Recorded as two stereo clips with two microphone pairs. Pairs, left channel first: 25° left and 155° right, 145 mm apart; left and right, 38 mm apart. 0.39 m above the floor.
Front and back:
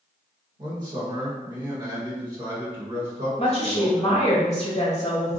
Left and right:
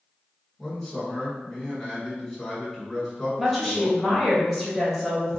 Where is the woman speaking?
Straight ahead, 1.1 m.